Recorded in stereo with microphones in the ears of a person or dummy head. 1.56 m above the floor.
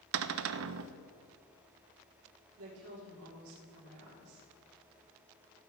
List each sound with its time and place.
0.1 s a cupboard door: 70° right (ahead or behind), 0.6 m
2.6 s a woman speaking: 80° right, 4.5 m